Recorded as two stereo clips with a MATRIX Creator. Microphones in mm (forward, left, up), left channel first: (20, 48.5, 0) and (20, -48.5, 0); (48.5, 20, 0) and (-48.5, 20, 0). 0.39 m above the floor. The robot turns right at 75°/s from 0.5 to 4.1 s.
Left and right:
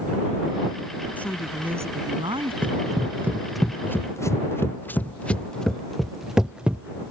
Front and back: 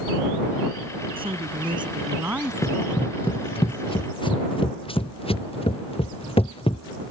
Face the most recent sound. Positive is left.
turn(degrees=-15)